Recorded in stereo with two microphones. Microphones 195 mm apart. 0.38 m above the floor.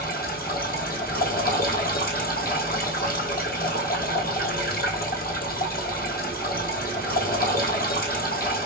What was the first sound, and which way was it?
Running water, 50° left (ahead or behind).